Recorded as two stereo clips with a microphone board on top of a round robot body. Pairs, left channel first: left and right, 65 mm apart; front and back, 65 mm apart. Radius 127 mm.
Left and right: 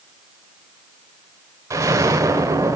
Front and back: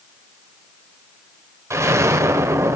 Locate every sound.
1.7 s an explosion: 135° right, 1.0 m